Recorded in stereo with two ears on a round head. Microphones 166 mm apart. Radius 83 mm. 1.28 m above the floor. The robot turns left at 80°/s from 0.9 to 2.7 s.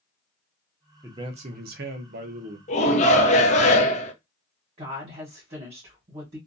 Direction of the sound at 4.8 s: 35° right (ahead or behind).